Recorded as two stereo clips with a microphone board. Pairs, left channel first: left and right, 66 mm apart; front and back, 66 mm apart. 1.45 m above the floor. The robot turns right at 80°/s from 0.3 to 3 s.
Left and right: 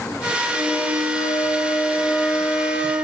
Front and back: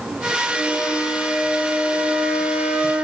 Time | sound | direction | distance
0.5 | a flute | 35° left | 5 m